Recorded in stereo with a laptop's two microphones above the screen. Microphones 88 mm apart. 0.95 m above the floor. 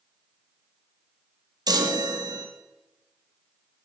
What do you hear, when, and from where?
1.7 s a chime: 50° right (ahead or behind), 1.1 m